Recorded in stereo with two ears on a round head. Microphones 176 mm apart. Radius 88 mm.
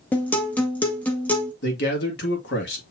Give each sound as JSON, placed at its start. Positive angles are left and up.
{"t": 0.1, "sound": "a guitar", "side_deg": 10, "distance_m": 1.0}
{"t": 1.6, "sound": "a man speaking", "side_deg": 60, "distance_m": 1.8}